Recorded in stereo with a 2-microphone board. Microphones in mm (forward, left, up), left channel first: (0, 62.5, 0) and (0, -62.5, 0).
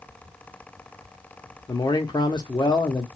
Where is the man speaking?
35° left (ahead or behind), 0.7 m.